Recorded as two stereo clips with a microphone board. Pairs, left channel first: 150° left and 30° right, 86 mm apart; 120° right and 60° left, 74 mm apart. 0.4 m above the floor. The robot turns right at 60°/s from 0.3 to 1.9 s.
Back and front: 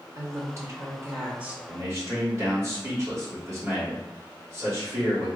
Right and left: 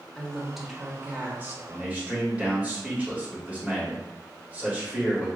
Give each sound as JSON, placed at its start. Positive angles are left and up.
{"t": 0.1, "sound": "a woman speaking", "azimuth_deg": -45, "distance_m": 0.9}
{"t": 1.7, "sound": "a man speaking", "azimuth_deg": -10, "distance_m": 1.7}